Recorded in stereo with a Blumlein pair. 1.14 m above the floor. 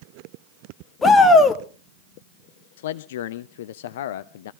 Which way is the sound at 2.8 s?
55° left.